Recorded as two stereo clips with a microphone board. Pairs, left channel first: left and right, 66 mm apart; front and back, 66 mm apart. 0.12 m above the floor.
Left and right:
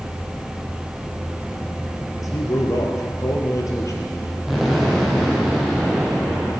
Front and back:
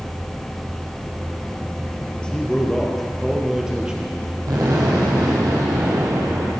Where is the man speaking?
75° left, 3 m; by 4.4 s 115° left, 3 m.